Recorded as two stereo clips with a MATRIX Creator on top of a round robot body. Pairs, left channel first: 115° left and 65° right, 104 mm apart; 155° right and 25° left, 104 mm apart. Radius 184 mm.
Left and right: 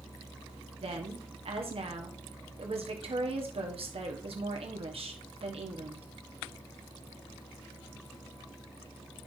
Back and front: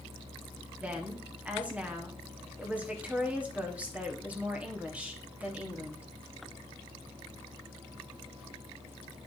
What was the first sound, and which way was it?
A woman speaking, 55° right.